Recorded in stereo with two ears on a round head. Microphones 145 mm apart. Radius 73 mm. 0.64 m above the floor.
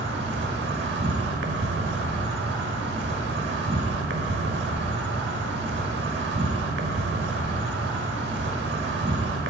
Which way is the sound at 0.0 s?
75° right (ahead or behind).